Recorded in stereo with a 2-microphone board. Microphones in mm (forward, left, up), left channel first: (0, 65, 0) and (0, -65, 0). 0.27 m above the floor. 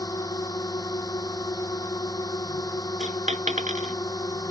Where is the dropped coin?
75° right (ahead or behind).